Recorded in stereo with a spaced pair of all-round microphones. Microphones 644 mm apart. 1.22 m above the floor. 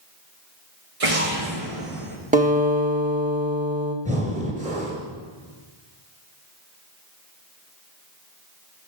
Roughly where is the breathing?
Centre.